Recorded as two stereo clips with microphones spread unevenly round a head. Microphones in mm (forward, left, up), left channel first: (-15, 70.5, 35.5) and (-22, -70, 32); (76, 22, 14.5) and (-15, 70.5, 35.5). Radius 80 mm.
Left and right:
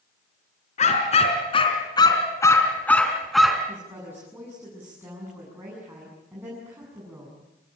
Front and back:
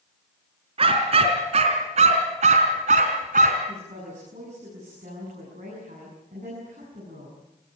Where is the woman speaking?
165° right, 8.5 m.